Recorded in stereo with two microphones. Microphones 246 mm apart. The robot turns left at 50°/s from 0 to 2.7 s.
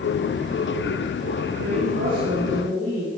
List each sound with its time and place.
1.6 s a woman speaking: 100° right, 5.5 m; by 3.1 s 155° right, 5.5 m